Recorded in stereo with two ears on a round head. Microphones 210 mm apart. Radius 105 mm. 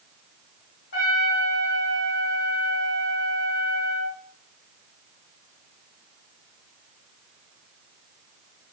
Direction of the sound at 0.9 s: 40° left (ahead or behind).